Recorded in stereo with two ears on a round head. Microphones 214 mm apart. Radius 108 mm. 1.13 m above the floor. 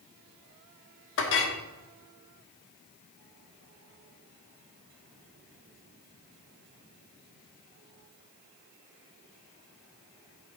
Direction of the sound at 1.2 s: 55° left (ahead or behind).